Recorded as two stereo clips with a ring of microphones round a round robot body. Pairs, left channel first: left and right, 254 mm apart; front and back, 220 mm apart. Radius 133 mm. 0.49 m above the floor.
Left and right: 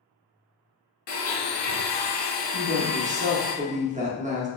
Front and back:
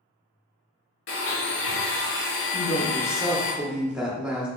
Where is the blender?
35° left, 1.0 m.